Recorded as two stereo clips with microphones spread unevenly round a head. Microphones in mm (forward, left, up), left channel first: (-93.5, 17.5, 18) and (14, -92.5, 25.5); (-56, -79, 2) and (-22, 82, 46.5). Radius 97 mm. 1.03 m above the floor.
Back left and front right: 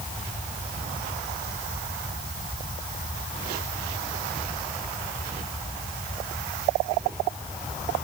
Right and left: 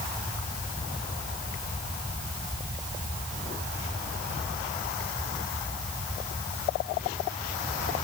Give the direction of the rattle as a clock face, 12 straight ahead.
No rattle in this recording.